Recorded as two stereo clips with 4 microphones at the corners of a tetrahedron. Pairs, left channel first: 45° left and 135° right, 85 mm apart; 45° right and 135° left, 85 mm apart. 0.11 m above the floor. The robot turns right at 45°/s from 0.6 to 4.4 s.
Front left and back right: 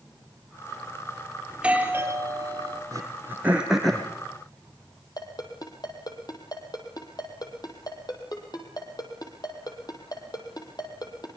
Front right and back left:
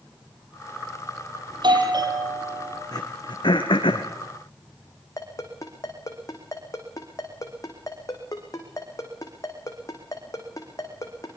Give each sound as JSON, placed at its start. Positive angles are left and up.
{"t": 1.5, "sound": "a doorbell", "azimuth_deg": 145, "distance_m": 3.5}
{"t": 2.9, "sound": "throat clearing", "azimuth_deg": -85, "distance_m": 3.0}
{"t": 5.2, "sound": "a ringtone", "azimuth_deg": 5, "distance_m": 4.0}